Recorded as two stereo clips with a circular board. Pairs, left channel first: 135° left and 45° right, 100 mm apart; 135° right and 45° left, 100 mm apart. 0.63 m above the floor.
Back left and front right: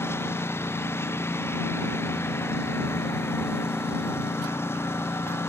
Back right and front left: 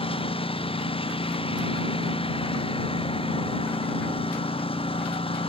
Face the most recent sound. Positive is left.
turn(degrees=-160)